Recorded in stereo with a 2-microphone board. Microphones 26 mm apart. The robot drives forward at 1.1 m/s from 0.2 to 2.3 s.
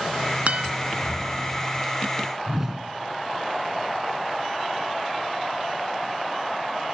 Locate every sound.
0.5 s a guitar: 60° right (ahead or behind), 1.0 m; by 0.7 s 50° right (ahead or behind), 1.1 m
2.5 s a whoosh: 15° right (ahead or behind), 1.4 m